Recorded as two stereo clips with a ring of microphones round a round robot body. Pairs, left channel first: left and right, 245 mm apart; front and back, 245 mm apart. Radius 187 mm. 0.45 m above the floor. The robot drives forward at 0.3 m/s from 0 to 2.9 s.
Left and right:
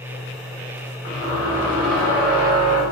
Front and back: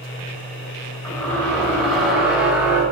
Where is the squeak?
80° left, 2.0 m; by 2.8 s 95° left, 2.0 m.